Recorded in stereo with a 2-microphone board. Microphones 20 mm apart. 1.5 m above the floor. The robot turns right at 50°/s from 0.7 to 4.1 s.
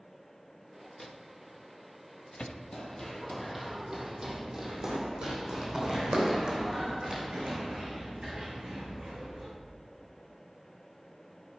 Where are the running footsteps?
30° left (ahead or behind), 1.8 m; by 9.5 s 70° right (ahead or behind), 4.5 m.